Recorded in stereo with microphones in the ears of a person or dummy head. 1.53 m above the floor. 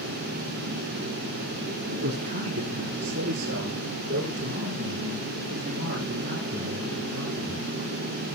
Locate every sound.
1.9 s a man speaking: 45° right (ahead or behind), 3 m